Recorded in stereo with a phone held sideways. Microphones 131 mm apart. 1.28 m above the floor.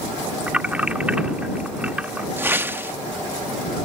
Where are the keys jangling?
10° right (ahead or behind).